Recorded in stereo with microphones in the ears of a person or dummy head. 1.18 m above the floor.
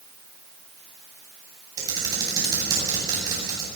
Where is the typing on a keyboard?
20° right (ahead or behind), 9.5 m.